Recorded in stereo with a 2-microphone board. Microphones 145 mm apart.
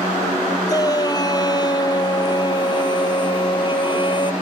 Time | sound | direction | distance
0.7 | a shout | 25° left (ahead or behind) | ?